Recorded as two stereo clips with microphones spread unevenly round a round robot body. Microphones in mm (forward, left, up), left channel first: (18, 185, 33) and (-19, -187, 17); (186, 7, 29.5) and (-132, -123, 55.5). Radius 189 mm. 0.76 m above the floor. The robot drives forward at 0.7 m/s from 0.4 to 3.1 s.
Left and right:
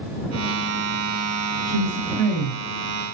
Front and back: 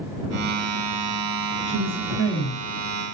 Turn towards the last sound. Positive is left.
turn(degrees=90)